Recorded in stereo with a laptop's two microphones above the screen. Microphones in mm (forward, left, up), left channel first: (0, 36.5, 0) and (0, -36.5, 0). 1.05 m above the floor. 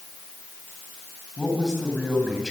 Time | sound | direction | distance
1.4 | a man speaking | 5° left (ahead or behind) | 8.5 m